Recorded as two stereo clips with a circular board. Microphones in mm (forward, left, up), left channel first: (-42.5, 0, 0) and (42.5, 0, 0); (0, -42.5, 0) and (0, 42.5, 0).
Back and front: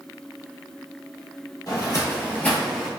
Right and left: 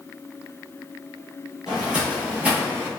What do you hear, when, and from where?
1.7 s footsteps: 170° left, 1.6 m; by 2.9 s 80° left, 1.2 m